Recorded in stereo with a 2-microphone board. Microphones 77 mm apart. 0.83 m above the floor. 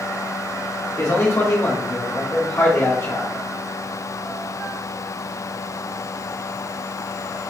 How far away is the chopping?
I don't hear chopping.